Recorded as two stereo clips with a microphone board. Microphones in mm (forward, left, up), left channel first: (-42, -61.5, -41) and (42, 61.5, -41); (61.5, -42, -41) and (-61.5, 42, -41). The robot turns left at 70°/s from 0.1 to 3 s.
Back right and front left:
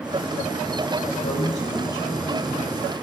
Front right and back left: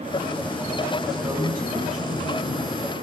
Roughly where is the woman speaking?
Behind right.